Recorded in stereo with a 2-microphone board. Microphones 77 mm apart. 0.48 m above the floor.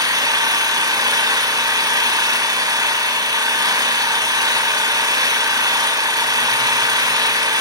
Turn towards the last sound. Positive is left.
turn(degrees=-55)  # may be behind; listen again after turning